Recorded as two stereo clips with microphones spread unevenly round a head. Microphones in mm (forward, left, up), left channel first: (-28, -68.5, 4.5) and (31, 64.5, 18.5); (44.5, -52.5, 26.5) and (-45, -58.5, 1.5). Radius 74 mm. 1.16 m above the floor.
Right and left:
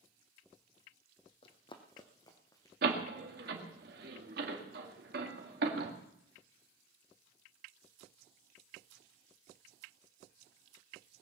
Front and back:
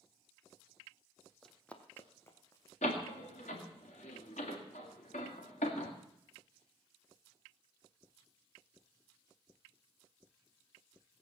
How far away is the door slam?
About 2.0 m.